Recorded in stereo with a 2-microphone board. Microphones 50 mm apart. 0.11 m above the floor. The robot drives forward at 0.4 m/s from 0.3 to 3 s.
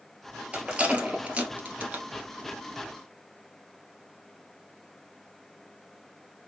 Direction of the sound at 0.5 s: 20° right (ahead or behind).